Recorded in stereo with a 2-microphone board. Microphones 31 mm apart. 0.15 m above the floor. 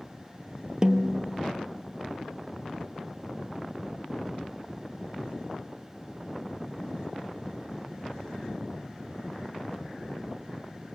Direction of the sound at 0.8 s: 30° right (ahead or behind).